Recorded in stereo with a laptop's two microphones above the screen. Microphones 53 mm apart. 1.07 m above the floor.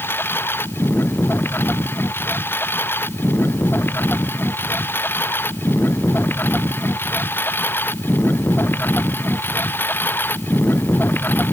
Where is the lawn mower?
45° left (ahead or behind); by 11.5 s 40° left (ahead or behind).